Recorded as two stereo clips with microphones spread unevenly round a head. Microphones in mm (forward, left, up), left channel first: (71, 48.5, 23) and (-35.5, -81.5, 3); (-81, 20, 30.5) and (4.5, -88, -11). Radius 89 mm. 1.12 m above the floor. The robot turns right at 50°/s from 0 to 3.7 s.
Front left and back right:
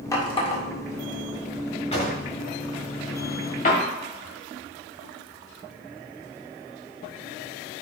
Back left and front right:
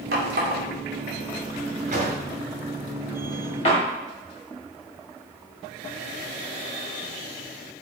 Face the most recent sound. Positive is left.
turn(degrees=95)